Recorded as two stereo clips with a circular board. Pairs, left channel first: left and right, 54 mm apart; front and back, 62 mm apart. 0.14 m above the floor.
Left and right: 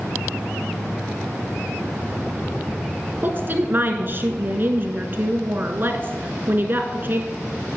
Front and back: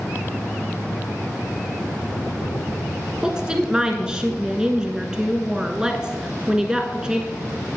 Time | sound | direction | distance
3.2 | a woman speaking | 110° right | 1.5 m